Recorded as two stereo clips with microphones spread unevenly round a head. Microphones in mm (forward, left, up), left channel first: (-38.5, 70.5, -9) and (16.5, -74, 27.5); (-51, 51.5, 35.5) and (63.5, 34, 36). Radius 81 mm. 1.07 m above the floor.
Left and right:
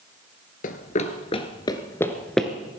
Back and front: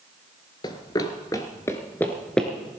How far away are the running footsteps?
About 1.3 m.